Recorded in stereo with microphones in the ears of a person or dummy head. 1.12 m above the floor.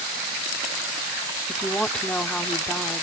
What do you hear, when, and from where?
1.5 s a woman speaking: 10° left (ahead or behind)